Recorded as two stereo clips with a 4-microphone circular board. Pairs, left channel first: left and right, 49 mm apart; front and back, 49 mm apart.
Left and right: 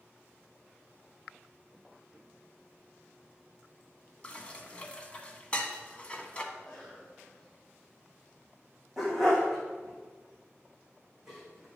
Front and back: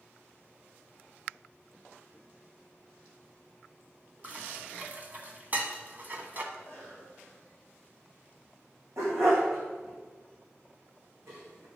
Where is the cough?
175° left, 4.5 m.